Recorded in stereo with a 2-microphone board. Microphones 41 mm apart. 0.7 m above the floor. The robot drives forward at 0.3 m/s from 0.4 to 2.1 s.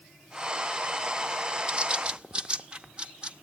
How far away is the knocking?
No knocking in this recording.